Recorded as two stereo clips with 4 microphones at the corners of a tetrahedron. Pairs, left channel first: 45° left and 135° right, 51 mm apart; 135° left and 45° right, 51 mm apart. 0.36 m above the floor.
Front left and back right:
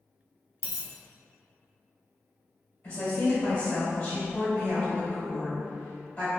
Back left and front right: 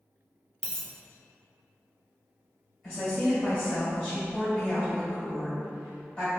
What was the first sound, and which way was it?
A dropped coin, 65° left.